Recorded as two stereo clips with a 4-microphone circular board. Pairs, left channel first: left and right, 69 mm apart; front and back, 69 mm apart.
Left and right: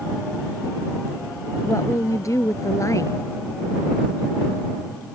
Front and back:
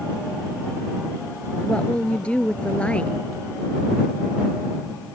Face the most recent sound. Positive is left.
turn(degrees=70)